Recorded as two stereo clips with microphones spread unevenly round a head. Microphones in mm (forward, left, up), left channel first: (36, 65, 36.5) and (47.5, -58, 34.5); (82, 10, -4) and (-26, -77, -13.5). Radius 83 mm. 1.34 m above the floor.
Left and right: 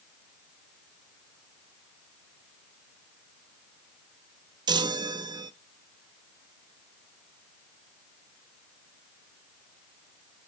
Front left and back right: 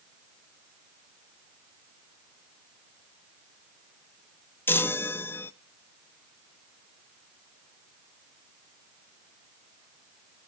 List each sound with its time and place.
4.7 s a chime: 35° right, 0.6 m